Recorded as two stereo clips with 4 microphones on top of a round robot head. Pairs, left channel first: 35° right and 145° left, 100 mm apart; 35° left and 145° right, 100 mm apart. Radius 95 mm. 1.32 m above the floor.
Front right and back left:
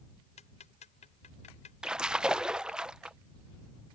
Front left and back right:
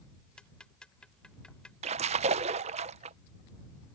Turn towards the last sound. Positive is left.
turn(degrees=-130)